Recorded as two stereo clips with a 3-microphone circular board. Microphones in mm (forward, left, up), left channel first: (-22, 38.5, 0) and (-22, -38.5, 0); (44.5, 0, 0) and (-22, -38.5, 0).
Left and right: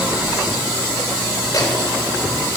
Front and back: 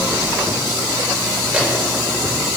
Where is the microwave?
135° left, 6 m.